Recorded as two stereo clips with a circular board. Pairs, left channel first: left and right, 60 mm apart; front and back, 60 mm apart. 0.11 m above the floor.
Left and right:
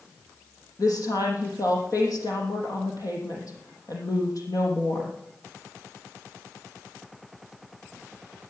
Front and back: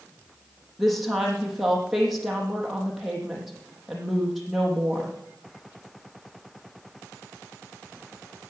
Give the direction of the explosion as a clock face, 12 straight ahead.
I don't hear an explosion.